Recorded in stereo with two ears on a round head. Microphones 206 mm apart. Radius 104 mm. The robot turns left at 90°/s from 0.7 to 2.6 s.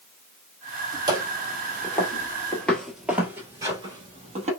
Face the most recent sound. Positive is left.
turn(degrees=-30)  # may be behind; listen again after turning